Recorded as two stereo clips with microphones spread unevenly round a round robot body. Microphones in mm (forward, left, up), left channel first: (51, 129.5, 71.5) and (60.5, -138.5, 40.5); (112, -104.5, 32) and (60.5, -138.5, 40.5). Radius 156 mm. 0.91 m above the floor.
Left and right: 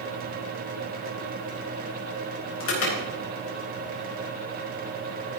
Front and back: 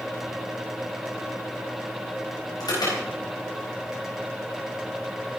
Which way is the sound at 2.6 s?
50° left.